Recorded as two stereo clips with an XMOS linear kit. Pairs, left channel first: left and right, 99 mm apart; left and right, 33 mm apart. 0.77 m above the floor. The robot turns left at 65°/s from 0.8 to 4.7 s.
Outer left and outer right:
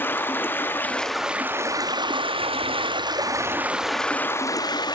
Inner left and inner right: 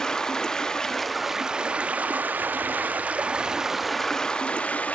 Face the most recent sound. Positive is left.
turn(degrees=130)